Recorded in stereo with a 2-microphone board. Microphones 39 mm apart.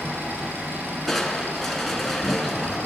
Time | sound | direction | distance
0.0 | an engine running | 85° right | 6.5 m
1.1 | crushing | centre (ahead or behind) | 2.5 m